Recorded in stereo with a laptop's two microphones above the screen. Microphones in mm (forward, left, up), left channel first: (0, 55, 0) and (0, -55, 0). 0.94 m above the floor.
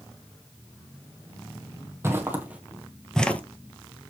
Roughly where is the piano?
No piano in this recording.